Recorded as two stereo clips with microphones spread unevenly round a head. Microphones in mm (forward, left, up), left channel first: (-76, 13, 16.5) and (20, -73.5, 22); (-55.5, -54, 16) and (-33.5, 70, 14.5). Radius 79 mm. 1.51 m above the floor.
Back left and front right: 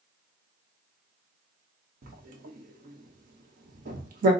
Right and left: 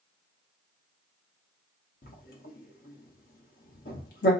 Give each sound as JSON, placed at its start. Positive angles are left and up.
{"t": 2.0, "sound": "writing", "azimuth_deg": -65, "distance_m": 0.9}